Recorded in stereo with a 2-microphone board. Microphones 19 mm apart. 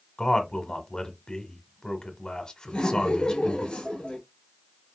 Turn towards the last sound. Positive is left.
turn(degrees=55)  # may be behind; listen again after turning